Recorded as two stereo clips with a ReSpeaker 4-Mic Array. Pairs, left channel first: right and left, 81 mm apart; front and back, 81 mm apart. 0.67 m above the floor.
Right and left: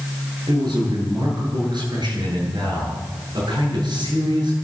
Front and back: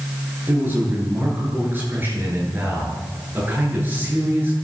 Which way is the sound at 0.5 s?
115° left.